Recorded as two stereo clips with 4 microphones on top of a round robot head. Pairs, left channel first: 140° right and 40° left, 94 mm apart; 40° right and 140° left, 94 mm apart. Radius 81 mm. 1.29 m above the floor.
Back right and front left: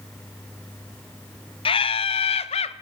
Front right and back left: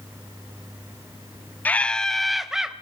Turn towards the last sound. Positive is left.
turn(degrees=-135)